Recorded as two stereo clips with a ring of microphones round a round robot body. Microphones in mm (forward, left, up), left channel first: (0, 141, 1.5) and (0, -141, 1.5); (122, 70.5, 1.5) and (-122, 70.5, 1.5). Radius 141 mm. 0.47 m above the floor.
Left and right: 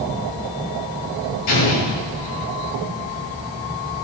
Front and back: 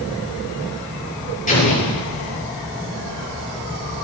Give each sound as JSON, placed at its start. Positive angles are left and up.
{"t": 1.5, "sound": "an explosion", "azimuth_deg": 60, "distance_m": 8.5}